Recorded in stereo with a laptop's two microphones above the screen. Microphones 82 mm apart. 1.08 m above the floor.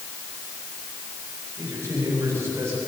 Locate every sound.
1.6 s a man speaking: 40° right (ahead or behind), 8.5 m; by 2.8 s 35° right (ahead or behind), 9 m